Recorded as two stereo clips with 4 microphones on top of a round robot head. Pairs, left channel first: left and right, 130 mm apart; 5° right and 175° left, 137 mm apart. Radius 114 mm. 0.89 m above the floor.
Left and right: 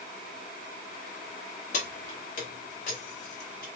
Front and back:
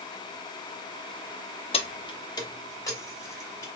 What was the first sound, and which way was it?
Keys jangling, 45° left.